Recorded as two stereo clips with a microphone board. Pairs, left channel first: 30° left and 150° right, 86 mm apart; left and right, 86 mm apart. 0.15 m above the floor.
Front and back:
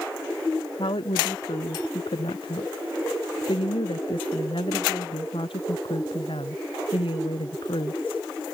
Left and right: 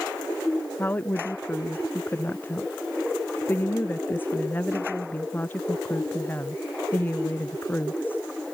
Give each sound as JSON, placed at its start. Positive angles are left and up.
{"t": 0.8, "sound": "a woman speaking", "azimuth_deg": 20}